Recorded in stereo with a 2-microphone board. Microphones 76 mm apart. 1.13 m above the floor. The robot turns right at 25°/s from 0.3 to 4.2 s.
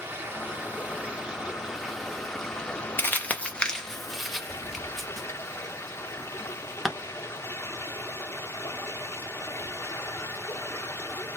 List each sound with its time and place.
0.0 s running water: 45° right, 0.8 m; by 11.4 s 55° left, 0.8 m
3.0 s crumpling: 30° left (ahead or behind), 0.8 m; by 6.9 s centre (ahead or behind), 0.8 m